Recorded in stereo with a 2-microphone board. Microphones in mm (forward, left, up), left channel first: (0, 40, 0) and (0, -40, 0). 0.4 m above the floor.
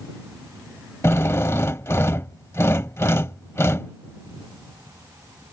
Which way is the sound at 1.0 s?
35° left (ahead or behind).